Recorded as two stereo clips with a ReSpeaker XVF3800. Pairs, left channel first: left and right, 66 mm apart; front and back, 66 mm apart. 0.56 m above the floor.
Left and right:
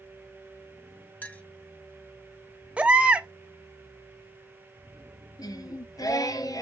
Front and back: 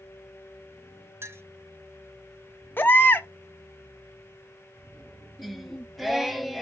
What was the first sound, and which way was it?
A clink, 145° left.